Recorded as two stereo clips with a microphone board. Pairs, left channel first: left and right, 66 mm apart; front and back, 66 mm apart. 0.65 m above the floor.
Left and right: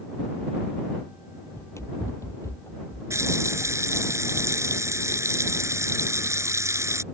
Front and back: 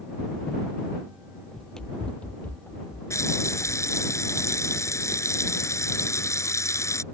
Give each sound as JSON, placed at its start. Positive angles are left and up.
{"t": 1.5, "sound": "running footsteps", "azimuth_deg": 90}
{"t": 3.1, "sound": "a running tap", "azimuth_deg": -45}